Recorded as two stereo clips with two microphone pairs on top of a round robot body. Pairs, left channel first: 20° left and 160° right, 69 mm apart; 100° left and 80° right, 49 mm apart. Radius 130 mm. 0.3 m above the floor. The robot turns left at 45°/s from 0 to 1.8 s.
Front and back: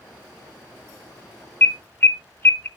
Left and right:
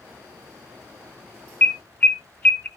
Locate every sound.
1.6 s an alarm: 55° left, 0.8 m; by 2.7 s 45° left, 0.8 m